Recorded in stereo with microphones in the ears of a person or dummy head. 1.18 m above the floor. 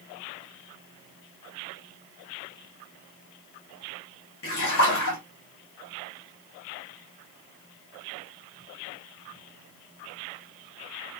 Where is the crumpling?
No crumpling in this recording.